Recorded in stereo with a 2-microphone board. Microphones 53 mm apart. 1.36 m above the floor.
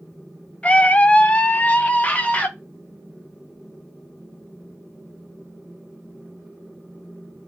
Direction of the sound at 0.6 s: 20° left (ahead or behind).